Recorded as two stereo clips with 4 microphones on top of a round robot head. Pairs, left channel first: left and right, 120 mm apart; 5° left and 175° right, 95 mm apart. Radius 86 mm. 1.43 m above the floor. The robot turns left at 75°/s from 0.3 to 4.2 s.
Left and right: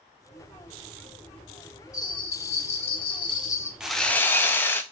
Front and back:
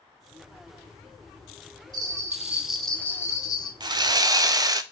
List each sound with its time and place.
1.9 s a bell: 155° left, 0.6 m; by 3.7 s 25° left, 0.6 m
3.8 s sawing: 170° right, 0.5 m; by 4.8 s 160° left, 0.5 m